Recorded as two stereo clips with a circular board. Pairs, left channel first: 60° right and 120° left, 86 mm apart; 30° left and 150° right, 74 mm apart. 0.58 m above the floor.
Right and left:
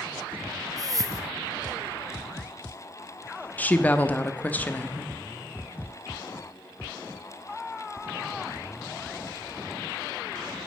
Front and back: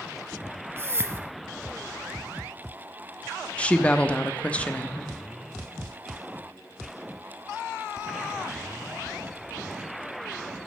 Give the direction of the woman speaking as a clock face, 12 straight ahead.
1 o'clock.